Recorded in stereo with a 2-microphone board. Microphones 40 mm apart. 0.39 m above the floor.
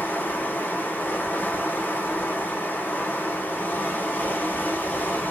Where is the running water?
60° left (ahead or behind), 0.8 m.